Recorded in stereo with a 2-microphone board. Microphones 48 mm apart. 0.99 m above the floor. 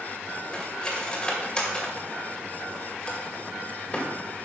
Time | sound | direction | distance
0.5 | cutlery clinking | 15° left (ahead or behind) | 2.5 m